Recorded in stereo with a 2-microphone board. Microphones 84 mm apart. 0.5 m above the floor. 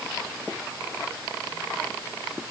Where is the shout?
No shout in this recording.